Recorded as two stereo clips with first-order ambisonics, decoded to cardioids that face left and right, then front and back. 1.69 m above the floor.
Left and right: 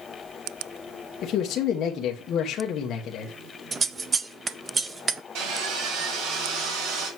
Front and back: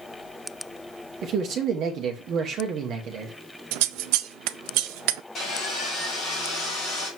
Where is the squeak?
No squeak in this recording.